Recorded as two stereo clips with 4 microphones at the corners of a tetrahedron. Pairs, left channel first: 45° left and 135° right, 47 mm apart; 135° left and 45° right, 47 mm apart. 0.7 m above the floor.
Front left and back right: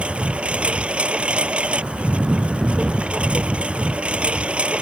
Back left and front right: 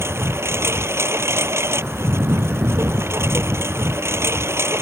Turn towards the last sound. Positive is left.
turn(degrees=-70)